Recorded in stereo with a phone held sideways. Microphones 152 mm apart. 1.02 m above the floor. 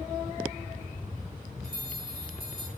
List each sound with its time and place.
1.6 s a bell: 75° left (ahead or behind), 6 m